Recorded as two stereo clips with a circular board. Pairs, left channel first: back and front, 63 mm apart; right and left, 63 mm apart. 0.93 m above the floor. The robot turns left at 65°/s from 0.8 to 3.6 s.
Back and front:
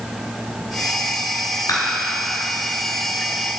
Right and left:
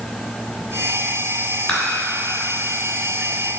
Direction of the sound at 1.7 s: 165° right.